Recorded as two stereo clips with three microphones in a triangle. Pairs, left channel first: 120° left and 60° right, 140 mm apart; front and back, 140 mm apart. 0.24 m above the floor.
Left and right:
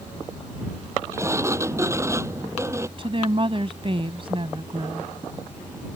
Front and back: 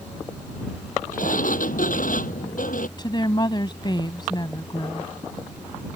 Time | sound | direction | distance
1.1 | a sliding door | 10° left | ?
3.0 | a woman speaking | 40° right | ?